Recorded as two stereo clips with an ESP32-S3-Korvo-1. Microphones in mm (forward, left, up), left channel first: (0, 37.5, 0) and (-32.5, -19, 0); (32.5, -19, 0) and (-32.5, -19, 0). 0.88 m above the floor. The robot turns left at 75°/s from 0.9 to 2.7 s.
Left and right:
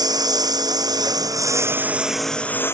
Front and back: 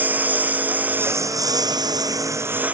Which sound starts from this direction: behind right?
A lawn mower, at 0.0 s.